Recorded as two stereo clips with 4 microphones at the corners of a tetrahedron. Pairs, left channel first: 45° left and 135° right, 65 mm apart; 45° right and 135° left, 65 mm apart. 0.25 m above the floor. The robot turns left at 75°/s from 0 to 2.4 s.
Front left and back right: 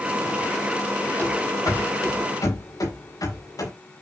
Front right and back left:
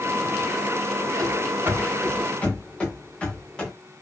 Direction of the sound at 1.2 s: 105° left.